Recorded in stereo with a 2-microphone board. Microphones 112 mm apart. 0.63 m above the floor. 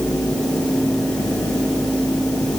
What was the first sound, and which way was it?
Only background noise.